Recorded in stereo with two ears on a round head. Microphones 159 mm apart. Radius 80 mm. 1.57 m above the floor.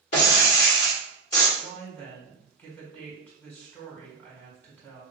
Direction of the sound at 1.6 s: 10° left (ahead or behind).